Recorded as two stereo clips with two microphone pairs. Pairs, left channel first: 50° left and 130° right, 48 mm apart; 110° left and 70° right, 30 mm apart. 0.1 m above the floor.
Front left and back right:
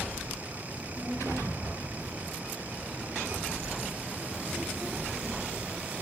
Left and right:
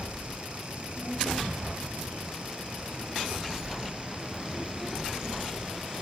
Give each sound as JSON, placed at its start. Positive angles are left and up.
{"t": 0.7, "sound": "a child speaking", "azimuth_deg": -75, "distance_m": 4.0}